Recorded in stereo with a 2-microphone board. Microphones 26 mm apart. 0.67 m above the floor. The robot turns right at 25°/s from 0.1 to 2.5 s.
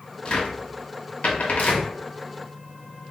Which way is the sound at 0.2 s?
40° left (ahead or behind).